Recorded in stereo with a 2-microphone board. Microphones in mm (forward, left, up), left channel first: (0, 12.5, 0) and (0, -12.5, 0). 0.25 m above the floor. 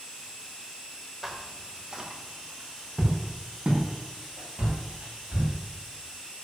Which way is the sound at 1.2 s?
Centre (ahead or behind).